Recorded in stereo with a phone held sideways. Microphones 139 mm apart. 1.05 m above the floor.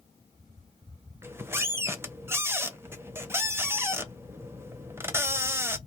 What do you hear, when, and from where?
1.2 s a squeak: 15° right (ahead or behind), 0.6 m